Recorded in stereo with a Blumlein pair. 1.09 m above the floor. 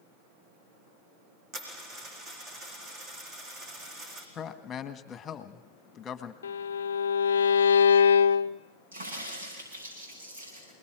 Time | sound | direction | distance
1.5 | a dropped coin | 30° right | 4.5 m
4.3 | a man speaking | 20° left | 1.6 m
6.4 | a violin | 70° left | 0.6 m
8.9 | a crack | 65° right | 9.5 m